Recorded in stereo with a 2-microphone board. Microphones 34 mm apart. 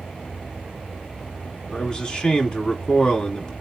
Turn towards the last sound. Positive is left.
turn(degrees=20)  # may be behind; listen again after turning